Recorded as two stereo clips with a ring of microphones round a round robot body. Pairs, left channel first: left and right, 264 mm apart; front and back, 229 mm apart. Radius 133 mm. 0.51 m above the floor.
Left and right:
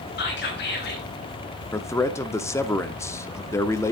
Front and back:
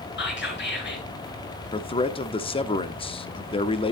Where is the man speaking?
25° left, 0.9 m.